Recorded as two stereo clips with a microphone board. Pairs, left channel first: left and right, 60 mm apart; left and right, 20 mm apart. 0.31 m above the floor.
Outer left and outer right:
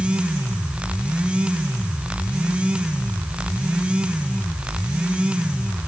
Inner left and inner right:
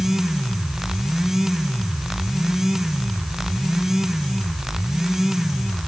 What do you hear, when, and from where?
Only background noise.